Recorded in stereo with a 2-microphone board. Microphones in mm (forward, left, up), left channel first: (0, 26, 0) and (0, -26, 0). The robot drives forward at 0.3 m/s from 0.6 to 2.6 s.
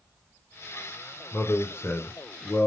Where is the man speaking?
40° left (ahead or behind), 1.3 m; by 2.7 s 55° left (ahead or behind), 1.1 m.